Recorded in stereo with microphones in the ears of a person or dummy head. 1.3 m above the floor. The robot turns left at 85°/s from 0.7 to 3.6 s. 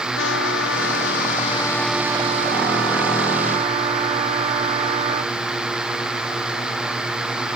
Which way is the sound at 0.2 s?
105° left.